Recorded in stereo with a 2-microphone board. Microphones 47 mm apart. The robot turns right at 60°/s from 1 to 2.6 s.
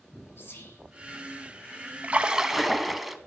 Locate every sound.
0.4 s whispering: 55° left (ahead or behind), 2 m
2.0 s a splash: 40° right, 0.6 m; by 3.2 s 5° right, 0.6 m